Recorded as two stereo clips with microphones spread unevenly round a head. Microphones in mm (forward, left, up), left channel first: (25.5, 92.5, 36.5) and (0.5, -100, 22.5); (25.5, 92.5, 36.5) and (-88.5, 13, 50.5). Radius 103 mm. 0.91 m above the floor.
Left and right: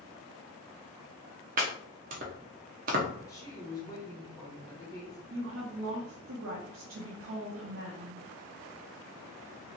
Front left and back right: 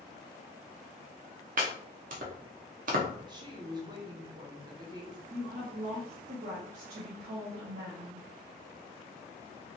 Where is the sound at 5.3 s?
100° right, 0.7 m.